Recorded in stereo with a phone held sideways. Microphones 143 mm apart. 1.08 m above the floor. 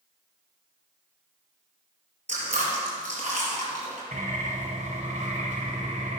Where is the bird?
60° right (ahead or behind), 3 m.